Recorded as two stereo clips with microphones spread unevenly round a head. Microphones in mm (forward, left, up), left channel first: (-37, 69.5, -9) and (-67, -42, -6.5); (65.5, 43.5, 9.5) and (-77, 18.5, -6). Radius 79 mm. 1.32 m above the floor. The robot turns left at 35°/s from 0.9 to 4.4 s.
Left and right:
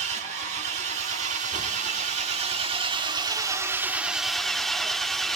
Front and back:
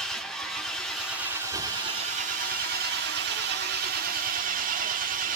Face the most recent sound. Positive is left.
turn(degrees=160)